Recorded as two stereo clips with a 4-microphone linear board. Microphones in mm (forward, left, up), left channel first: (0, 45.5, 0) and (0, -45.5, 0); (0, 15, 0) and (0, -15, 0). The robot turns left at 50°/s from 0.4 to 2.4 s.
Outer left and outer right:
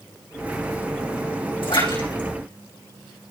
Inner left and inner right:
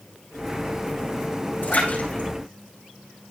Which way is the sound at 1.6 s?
80° left.